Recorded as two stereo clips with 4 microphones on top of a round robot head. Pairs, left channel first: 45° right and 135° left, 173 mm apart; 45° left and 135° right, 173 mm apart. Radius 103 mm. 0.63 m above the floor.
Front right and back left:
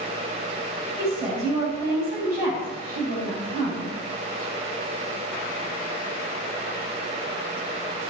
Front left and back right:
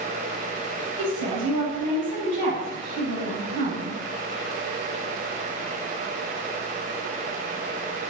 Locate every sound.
1.0 s a woman speaking: 145° right, 5 m